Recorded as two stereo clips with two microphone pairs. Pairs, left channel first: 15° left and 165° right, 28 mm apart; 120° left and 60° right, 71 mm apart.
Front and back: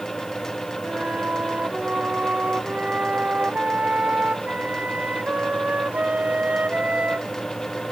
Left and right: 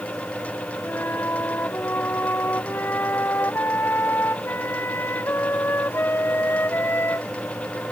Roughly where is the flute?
Behind.